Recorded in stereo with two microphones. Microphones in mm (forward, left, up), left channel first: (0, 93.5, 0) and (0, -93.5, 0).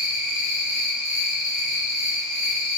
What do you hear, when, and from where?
0.0 s an insect: 45° left (ahead or behind), 1.6 m